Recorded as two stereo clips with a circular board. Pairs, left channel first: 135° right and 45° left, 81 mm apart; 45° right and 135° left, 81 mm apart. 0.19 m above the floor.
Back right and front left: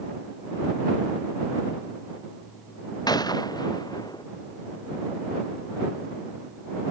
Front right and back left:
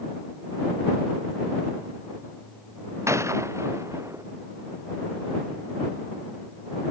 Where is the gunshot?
170° right.